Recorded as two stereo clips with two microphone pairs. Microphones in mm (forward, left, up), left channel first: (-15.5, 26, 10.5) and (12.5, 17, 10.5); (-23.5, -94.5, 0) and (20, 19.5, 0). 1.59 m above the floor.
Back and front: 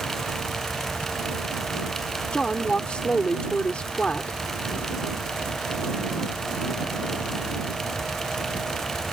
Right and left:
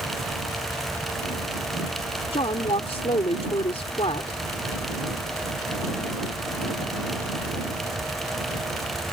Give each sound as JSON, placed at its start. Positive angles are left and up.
{"t": 2.3, "sound": "a woman speaking", "azimuth_deg": -145}